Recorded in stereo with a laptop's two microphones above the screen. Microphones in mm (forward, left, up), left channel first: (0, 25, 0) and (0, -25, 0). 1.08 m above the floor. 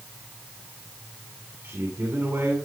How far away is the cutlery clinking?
I don't hear cutlery clinking.